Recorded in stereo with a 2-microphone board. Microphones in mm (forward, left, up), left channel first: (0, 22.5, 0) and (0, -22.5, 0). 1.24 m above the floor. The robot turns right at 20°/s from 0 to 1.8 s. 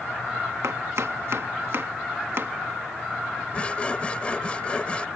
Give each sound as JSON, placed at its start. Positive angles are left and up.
{"t": 0.6, "sound": "chopping", "side_deg": -80}
{"t": 3.5, "sound": "sawing", "side_deg": 25}